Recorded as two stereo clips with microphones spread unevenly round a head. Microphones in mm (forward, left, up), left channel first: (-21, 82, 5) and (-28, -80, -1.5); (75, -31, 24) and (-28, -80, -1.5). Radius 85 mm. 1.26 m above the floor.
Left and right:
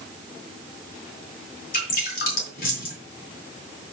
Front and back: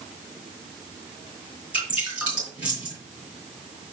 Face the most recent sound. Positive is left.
turn(degrees=120)